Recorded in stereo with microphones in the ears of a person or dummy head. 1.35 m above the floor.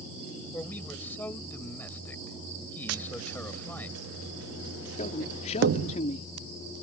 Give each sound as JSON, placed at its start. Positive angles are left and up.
{"t": 0.5, "sound": "a man speaking", "side_deg": 0}
{"t": 2.9, "sound": "tapping", "side_deg": -75}
{"t": 5.0, "sound": "a man speaking", "side_deg": 45}